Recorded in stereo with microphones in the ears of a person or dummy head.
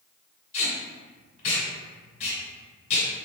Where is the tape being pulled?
40° left (ahead or behind), 1.7 m.